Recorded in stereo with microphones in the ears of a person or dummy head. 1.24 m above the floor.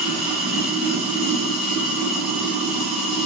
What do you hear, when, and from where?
0.0 s running water: centre (ahead or behind), 1.6 m